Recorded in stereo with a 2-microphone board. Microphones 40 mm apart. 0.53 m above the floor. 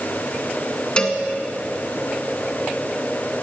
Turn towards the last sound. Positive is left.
turn(degrees=25)  # may be behind; listen again after turning